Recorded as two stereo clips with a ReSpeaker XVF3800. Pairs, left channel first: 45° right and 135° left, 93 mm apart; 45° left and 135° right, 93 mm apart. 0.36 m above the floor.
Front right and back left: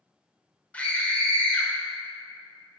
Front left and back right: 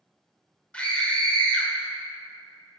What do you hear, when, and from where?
0.7 s a scream: 5° right, 1.2 m